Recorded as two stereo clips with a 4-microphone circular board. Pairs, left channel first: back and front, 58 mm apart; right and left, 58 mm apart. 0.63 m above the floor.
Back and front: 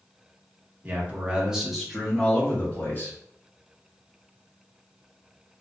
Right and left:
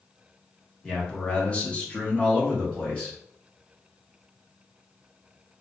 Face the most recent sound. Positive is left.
turn(degrees=-150)